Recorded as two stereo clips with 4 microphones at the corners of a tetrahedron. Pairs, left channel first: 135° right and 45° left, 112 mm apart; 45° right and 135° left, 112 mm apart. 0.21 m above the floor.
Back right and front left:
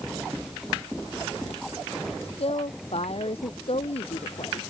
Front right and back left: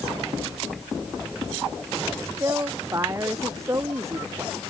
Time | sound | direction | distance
2.2 | a woman speaking | 160° right | ?